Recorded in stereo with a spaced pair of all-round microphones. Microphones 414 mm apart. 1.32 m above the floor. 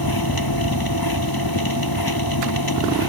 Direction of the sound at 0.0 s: 60° left (ahead or behind).